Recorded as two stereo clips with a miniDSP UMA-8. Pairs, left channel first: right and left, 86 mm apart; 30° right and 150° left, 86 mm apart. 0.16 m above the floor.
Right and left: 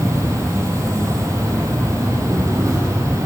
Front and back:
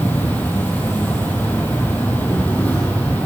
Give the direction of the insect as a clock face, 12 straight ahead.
11 o'clock.